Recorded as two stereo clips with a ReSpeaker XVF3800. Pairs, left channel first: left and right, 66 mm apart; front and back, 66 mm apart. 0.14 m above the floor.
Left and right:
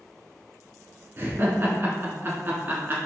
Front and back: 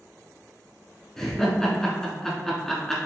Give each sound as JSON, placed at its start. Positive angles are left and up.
{"t": 1.2, "sound": "laughter", "azimuth_deg": -75, "distance_m": 1.4}